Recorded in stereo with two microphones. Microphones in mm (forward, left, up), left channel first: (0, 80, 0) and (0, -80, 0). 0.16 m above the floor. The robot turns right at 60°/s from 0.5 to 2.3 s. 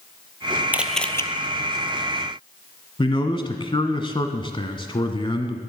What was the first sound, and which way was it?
A camera shutter, 10° right.